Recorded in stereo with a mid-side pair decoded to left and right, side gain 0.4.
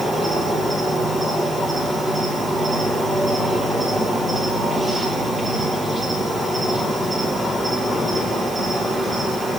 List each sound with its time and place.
0.0 s an insect: 15° right, 7.5 m